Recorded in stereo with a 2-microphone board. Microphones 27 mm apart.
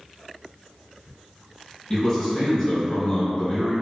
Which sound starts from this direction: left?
A man speaking, at 1.9 s.